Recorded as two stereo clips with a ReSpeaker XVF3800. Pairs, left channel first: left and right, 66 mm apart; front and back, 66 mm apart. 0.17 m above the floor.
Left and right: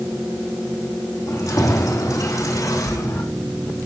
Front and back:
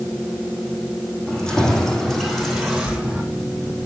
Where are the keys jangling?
75° left, 4 m; by 3.2 s 105° left, 3.5 m.